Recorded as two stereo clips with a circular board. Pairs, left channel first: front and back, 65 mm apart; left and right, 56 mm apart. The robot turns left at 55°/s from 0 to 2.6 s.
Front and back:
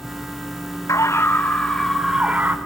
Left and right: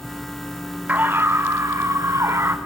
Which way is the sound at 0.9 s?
30° right.